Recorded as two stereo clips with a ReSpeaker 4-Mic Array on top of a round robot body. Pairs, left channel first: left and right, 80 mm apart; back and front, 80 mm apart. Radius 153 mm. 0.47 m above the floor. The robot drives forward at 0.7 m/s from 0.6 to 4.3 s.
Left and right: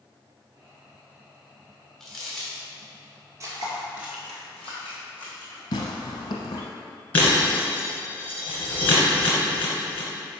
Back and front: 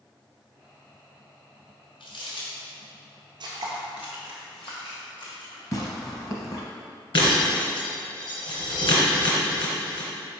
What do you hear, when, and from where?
2.0 s crumpling: straight behind, 2 m
3.4 s footsteps: 35° right, 1.0 m; by 5.6 s 160° left, 3 m
5.7 s tearing paper: 130° left, 0.7 m
7.1 s breaking glass: 160° left, 2 m